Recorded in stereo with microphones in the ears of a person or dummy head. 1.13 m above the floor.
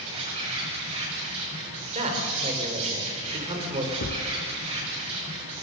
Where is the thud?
50° left (ahead or behind), 1.9 m.